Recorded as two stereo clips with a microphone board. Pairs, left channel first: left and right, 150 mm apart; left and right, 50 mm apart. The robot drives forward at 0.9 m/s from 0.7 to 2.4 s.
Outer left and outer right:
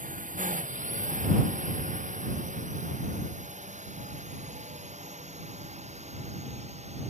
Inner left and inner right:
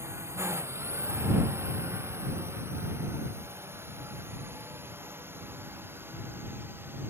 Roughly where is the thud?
No thud in this recording.